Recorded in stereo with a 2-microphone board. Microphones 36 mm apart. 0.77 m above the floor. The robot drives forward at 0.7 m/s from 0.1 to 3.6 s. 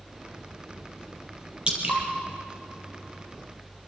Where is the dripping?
30° right (ahead or behind), 4 m.